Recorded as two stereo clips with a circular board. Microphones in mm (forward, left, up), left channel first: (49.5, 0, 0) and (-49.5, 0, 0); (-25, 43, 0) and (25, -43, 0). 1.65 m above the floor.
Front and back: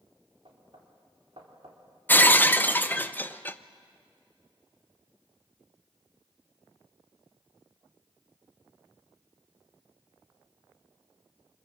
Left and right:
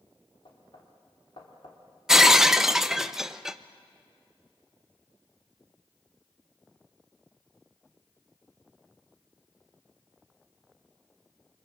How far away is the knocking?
About 3.5 m.